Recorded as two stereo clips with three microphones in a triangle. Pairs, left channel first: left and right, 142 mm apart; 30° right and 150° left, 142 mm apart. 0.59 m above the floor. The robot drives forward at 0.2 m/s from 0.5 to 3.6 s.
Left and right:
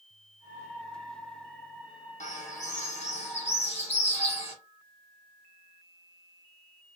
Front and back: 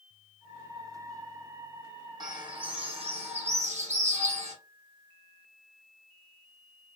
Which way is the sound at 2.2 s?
95° left.